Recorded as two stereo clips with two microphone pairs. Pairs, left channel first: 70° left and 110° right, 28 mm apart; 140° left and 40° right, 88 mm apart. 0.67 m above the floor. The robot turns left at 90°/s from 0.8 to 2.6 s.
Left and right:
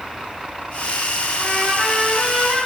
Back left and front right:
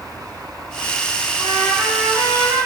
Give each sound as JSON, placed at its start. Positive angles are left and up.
{"t": 1.4, "sound": "a trumpet", "azimuth_deg": 90, "distance_m": 1.5}